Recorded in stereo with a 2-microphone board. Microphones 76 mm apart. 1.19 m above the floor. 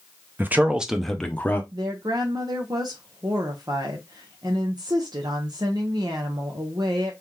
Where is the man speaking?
25° right (ahead or behind), 0.7 m; by 1.6 s 25° left (ahead or behind), 0.7 m.